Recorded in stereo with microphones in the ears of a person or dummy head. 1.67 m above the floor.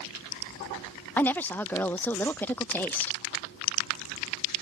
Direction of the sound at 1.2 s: 10° left (ahead or behind).